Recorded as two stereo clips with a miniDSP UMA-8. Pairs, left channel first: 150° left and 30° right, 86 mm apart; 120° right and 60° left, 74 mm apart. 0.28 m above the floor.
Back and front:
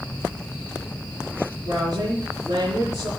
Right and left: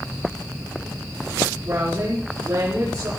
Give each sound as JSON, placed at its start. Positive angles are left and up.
{"t": 1.6, "sound": "a woman speaking", "azimuth_deg": 5, "distance_m": 6.0}